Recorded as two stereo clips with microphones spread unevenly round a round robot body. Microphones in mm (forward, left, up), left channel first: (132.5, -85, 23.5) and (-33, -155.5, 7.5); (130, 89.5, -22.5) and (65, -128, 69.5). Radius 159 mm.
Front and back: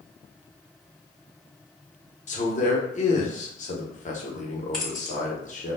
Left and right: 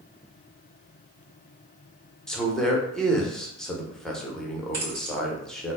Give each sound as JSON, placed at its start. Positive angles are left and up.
{"t": 2.3, "sound": "a man speaking", "azimuth_deg": 20, "distance_m": 0.8}
{"t": 4.7, "sound": "keys jangling", "azimuth_deg": -65, "distance_m": 1.8}